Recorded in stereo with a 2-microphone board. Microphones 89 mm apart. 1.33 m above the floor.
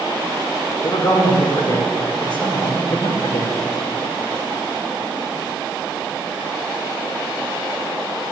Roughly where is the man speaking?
Left.